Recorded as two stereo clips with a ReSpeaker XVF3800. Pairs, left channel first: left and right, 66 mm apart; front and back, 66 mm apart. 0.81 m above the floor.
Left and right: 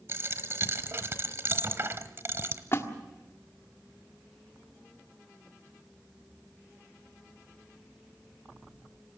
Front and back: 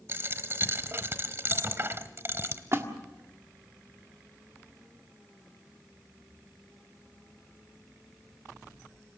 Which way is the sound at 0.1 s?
130° right.